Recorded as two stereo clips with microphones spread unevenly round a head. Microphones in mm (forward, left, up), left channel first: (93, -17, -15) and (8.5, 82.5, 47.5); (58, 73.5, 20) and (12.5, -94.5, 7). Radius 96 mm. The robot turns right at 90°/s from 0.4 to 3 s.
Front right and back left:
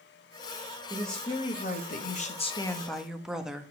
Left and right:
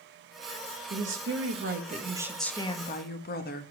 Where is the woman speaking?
150° right, 1.6 m; by 3.7 s 40° left, 1.6 m.